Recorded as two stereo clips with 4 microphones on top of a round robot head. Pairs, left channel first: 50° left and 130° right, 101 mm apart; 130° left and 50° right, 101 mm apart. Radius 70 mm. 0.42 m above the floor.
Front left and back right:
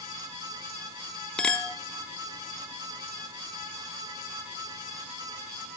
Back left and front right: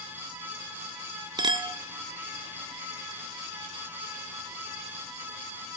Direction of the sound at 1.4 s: 30° right.